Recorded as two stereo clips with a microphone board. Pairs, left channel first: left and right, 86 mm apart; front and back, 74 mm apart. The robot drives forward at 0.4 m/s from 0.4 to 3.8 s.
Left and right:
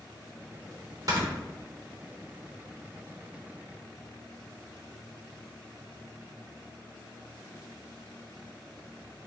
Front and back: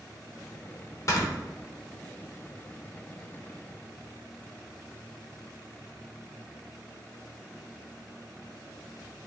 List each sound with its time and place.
1.1 s snoring: 45° right, 1.0 m